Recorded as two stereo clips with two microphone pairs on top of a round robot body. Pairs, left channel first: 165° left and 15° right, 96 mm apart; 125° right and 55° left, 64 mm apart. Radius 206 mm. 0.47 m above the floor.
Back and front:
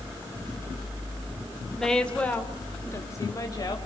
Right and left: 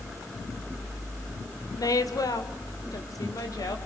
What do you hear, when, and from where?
1.8 s a woman speaking: 110° right, 2.5 m; by 3.8 s 145° right, 3.5 m